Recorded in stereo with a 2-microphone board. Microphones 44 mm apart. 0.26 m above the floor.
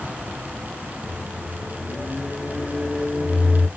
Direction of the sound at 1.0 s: 10° right (ahead or behind).